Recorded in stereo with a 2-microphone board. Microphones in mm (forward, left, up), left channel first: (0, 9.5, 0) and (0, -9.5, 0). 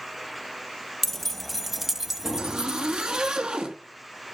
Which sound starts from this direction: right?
A zipper, at 2.4 s.